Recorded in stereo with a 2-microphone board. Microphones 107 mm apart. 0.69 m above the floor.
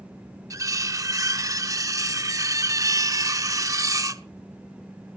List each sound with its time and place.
0.5 s cutlery clinking: 30° right (ahead or behind), 0.7 m